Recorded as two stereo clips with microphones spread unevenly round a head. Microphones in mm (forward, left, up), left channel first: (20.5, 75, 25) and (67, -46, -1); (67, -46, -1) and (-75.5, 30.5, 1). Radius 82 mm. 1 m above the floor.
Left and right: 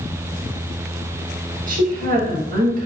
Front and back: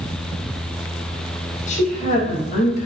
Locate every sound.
1.7 s a woman speaking: 75° right, 1.0 m